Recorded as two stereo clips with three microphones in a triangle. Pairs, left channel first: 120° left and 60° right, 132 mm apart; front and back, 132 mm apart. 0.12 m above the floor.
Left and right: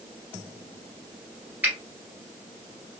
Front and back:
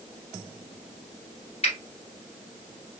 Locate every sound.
1.6 s a finger snap: 15° left, 1.4 m